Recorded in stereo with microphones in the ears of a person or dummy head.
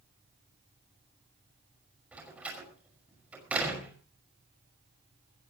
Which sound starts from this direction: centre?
A door slam, at 2.1 s.